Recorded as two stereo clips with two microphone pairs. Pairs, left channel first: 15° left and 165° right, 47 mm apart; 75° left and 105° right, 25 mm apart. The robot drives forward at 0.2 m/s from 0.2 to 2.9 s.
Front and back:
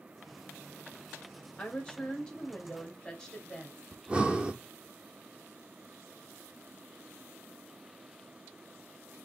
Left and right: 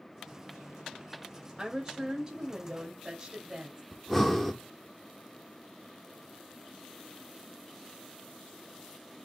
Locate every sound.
1.6 s a woman speaking: 45° right, 1.2 m; by 3.8 s 60° right, 1.1 m
3.9 s breathing: 165° left, 0.7 m